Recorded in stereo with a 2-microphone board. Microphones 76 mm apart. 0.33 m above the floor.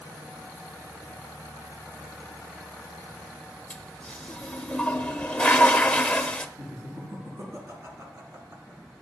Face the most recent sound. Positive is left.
turn(degrees=-40)  # may be behind; listen again after turning